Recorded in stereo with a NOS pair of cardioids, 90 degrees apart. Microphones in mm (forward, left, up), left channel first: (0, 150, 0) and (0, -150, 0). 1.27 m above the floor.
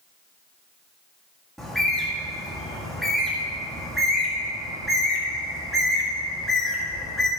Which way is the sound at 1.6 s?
Straight ahead.